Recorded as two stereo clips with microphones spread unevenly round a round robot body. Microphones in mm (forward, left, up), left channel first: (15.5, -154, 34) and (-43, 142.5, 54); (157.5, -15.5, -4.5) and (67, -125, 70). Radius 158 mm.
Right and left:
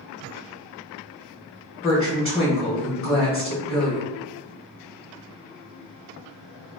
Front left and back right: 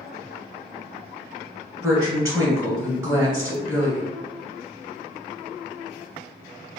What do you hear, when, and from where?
1.8 s a woman speaking: 30° right, 1.4 m